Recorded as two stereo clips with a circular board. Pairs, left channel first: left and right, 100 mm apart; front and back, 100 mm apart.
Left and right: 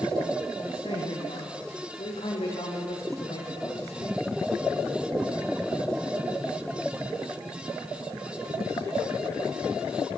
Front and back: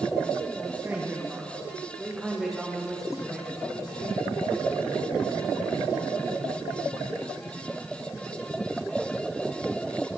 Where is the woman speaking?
110° left, 8.5 m; by 4.2 s 75° left, 7 m.